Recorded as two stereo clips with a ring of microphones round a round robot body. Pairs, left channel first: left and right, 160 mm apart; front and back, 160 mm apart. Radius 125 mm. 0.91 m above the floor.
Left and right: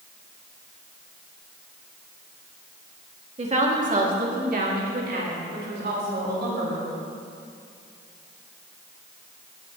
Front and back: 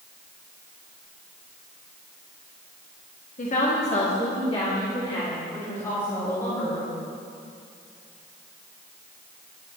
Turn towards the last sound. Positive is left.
turn(degrees=-80)